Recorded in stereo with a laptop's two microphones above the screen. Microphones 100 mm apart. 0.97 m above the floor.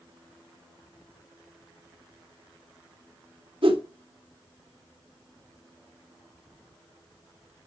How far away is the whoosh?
About 2.5 m.